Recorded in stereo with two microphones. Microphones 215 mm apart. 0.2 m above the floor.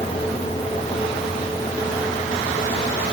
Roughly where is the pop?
No pop in this recording.